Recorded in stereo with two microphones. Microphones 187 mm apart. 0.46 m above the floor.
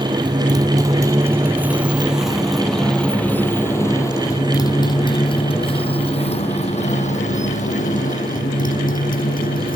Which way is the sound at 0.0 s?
25° right (ahead or behind).